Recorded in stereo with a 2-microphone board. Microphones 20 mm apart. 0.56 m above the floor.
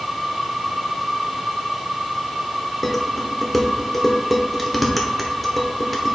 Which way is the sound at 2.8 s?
Centre (ahead or behind).